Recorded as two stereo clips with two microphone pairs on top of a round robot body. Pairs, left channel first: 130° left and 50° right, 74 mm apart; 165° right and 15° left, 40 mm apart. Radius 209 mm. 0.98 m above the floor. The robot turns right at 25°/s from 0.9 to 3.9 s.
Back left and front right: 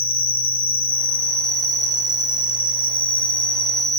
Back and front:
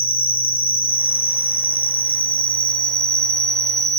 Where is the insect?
160° right, 1.6 m; by 4.0 s 85° right, 1.6 m.